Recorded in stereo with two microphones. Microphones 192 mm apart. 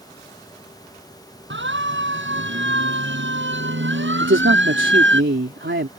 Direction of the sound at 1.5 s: 80° right.